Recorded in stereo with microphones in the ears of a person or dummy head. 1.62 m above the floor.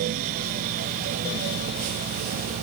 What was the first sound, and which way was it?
Only background noise.